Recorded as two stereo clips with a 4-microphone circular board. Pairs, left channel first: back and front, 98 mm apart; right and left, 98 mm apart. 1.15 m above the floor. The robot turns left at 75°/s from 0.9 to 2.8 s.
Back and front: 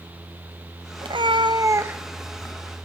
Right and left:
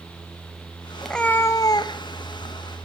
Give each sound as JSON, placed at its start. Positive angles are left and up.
{"t": 1.0, "sound": "a cat meowing", "azimuth_deg": 0, "distance_m": 0.5}